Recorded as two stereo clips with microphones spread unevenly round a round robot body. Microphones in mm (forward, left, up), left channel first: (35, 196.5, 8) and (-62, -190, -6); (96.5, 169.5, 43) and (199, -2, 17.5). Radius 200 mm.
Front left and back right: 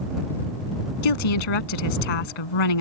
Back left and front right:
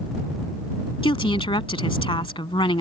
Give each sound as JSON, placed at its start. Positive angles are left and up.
{"t": 1.0, "sound": "a woman speaking", "azimuth_deg": 55}